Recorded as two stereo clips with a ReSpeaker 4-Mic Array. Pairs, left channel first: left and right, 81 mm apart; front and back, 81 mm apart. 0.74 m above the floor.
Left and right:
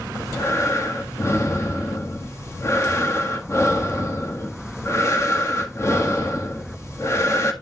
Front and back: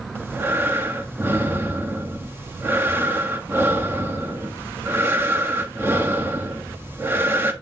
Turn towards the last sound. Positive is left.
turn(degrees=130)